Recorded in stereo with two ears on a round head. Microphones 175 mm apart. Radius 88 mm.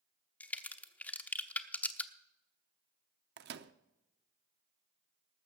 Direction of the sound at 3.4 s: 60° right (ahead or behind).